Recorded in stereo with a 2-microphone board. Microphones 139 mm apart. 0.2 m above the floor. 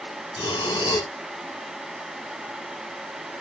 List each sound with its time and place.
0.4 s breathing: 30° left (ahead or behind), 1.2 m